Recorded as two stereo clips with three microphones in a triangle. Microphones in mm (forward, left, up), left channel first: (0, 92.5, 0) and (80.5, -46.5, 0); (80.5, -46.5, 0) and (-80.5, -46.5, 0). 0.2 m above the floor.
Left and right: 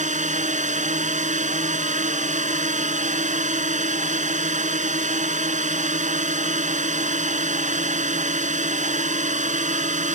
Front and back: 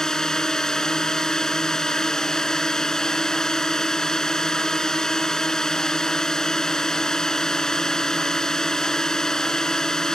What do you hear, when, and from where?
0.0 s a drone: 85° right